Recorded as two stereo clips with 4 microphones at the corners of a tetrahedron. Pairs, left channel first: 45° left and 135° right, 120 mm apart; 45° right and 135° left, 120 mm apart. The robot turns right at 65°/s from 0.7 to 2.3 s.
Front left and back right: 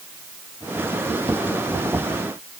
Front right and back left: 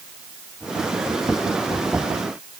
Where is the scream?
No scream in this recording.